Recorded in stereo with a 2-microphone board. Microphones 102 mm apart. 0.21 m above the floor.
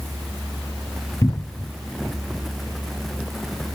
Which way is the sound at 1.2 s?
40° left (ahead or behind).